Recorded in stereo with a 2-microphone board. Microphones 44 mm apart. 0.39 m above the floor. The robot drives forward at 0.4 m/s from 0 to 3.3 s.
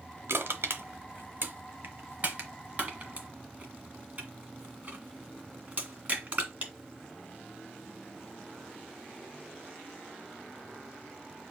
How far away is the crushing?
About 0.9 m.